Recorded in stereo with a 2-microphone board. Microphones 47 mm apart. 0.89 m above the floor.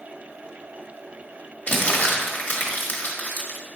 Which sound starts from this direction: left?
Crumpling, at 1.7 s.